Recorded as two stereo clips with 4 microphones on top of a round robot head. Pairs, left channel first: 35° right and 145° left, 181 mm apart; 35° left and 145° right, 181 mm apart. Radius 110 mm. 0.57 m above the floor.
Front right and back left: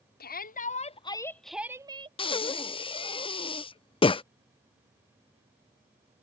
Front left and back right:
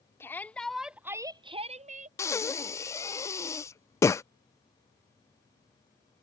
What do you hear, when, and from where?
0.2 s a shout: 40° right; by 2.1 s 165° right
2.2 s breathing: 25° right